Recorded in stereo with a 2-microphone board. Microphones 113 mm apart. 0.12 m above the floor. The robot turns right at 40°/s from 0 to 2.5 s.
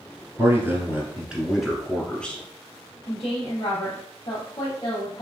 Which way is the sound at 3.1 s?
55° left (ahead or behind).